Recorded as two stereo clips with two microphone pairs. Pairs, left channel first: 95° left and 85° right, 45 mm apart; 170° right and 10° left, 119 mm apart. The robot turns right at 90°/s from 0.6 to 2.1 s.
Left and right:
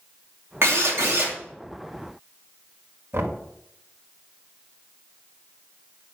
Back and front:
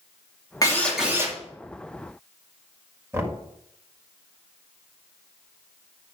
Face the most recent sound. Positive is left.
turn(degrees=-55)